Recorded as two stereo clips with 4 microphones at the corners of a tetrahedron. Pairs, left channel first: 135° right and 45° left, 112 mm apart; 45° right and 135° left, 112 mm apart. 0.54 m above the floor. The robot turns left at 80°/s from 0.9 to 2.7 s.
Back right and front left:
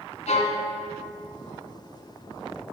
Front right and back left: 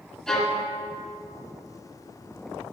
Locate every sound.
0.3 s a violin: 130° right, 1.8 m